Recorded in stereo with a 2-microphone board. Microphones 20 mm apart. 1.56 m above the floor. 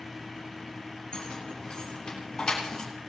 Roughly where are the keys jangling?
Left.